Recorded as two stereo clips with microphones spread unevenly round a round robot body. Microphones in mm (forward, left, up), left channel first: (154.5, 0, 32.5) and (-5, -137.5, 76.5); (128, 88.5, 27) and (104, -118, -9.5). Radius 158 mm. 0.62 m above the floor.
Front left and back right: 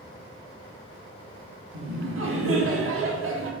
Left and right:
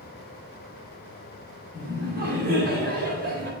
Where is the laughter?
130° right, 2 m.